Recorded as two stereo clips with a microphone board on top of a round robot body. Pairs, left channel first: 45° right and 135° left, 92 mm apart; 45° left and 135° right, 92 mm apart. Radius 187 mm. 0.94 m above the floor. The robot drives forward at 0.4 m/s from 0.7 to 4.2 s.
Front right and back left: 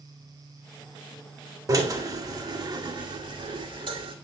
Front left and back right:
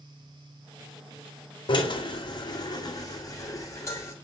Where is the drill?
80° left, 2 m; by 4.2 s 105° left, 2 m.